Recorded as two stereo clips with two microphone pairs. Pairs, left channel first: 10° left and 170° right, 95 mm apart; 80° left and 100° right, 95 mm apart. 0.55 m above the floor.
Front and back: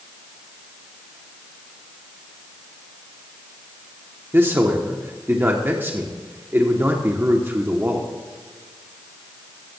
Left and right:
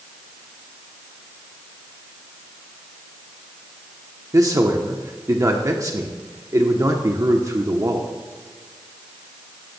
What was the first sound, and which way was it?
A man speaking, 115° right.